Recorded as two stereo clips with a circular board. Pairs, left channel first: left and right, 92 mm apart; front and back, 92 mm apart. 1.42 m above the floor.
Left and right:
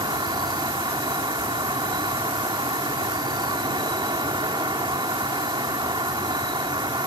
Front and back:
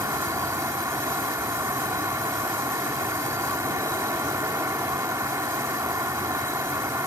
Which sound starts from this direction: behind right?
An insect, at 0.0 s.